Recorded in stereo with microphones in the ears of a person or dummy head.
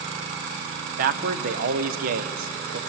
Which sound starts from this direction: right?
A man speaking, at 1.0 s.